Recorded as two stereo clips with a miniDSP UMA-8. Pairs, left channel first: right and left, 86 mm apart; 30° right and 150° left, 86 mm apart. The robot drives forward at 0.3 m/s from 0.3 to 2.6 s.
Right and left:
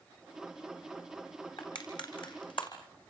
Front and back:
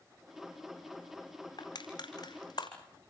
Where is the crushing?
70° right, 5.5 m.